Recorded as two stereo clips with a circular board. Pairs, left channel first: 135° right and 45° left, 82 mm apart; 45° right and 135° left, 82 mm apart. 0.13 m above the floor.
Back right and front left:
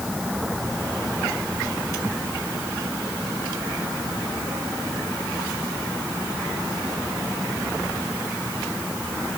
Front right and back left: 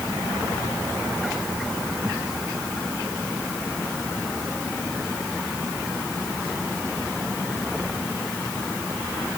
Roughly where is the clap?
I don't hear a clap.